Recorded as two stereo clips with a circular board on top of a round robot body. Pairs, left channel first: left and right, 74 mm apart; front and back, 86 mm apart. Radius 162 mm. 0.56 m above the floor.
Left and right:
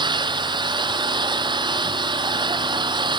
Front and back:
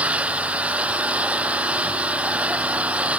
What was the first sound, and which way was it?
An engine running, 105° right.